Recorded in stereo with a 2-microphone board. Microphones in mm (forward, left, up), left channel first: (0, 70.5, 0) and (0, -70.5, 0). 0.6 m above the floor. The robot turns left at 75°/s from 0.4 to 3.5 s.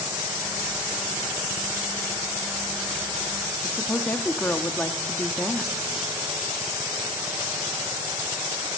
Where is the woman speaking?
10° left (ahead or behind), 1.1 m.